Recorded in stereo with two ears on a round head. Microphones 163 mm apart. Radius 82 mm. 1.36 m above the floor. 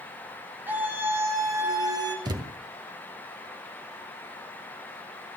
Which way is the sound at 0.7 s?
10° right (ahead or behind).